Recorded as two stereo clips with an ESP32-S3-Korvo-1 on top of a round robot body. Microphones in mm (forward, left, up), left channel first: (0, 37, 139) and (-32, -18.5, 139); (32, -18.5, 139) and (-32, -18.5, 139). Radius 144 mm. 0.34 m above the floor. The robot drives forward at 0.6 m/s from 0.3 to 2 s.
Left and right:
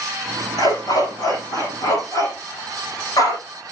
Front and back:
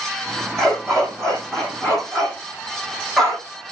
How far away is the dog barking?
About 9.5 m.